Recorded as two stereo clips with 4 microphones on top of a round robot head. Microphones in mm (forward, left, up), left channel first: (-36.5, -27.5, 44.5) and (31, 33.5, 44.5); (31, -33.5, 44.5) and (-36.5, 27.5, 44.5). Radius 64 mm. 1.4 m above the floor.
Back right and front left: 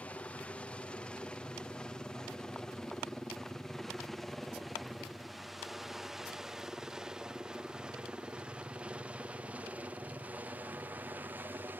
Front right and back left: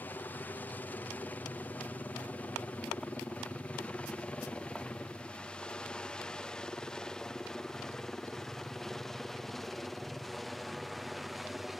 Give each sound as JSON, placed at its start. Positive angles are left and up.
{"t": 0.0, "sound": "a helicopter", "azimuth_deg": -80}